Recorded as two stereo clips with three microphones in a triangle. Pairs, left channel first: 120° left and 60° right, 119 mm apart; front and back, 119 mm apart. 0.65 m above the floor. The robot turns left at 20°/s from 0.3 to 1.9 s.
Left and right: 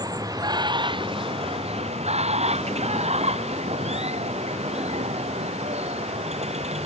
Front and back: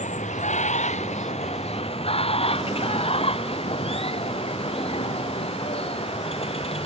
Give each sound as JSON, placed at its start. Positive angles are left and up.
{"t": 0.0, "sound": "running water", "azimuth_deg": 0}